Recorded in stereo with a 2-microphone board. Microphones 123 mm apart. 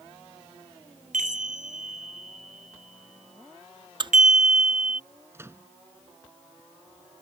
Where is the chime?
80° right.